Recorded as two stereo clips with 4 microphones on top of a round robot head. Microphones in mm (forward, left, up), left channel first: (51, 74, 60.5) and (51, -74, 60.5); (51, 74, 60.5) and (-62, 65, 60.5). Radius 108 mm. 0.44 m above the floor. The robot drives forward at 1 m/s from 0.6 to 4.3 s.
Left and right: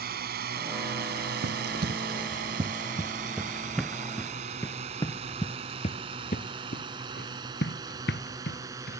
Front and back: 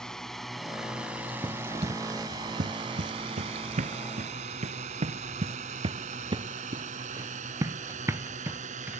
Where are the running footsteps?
105° right; by 9.0 s 110° left.